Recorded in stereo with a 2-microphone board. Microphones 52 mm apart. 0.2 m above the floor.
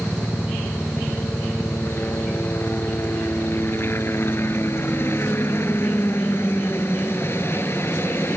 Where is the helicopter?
45° left (ahead or behind).